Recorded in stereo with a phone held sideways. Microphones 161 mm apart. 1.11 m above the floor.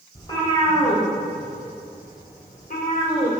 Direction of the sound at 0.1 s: 25° left (ahead or behind).